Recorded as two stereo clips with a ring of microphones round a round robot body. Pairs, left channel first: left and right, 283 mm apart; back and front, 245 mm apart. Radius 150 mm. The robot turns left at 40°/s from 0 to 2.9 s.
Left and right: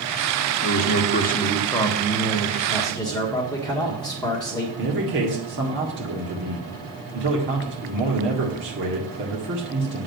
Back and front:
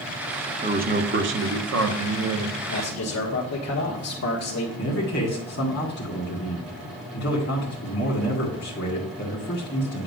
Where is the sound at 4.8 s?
135° right, 2.0 m.